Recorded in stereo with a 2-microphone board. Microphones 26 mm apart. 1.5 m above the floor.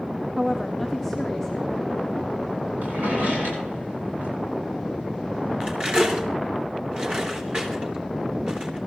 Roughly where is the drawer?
Right.